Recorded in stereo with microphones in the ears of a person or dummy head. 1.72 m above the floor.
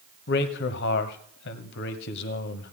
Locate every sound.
0.3 s a man speaking: 65° left (ahead or behind), 1.1 m